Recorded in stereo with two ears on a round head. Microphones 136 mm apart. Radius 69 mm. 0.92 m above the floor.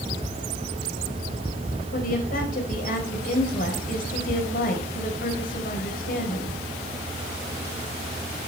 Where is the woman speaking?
65° left (ahead or behind), 4.5 m.